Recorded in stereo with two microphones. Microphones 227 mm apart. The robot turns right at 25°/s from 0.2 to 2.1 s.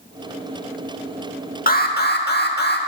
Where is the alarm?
40° left (ahead or behind), 0.9 m; by 2.8 s 45° left (ahead or behind), 0.9 m.